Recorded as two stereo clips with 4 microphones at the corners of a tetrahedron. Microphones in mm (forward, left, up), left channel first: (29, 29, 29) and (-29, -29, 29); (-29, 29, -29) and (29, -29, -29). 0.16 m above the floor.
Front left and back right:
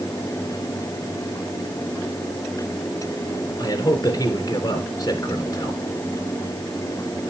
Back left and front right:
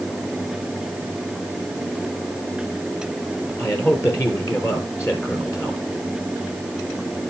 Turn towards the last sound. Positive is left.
turn(degrees=85)